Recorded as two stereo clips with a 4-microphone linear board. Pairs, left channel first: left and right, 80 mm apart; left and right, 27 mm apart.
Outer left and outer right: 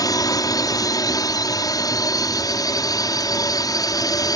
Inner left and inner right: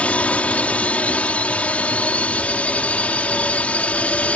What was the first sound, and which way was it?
A drone, 55° left (ahead or behind).